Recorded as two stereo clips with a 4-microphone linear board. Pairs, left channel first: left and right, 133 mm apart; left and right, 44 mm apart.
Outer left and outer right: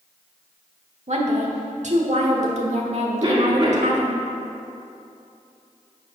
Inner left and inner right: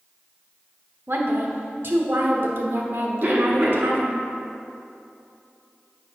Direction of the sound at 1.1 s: 60° right (ahead or behind).